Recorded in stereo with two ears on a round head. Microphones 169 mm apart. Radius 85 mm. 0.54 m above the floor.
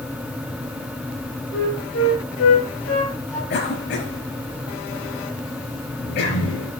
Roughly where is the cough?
Left.